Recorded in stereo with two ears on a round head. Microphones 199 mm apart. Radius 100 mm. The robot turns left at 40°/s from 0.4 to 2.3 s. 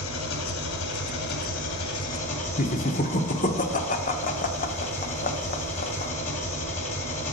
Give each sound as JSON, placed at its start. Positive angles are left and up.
{"t": 0.0, "sound": "an engine running", "azimuth_deg": 110, "distance_m": 1.8}
{"t": 2.6, "sound": "laughter", "side_deg": 40, "distance_m": 1.0}